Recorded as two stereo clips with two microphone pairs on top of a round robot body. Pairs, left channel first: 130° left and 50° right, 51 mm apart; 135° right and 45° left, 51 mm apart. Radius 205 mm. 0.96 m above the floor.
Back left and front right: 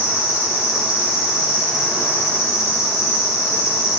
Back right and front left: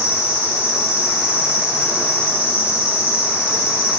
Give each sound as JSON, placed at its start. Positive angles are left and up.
{"t": 0.0, "sound": "an insect", "azimuth_deg": 25, "distance_m": 2.5}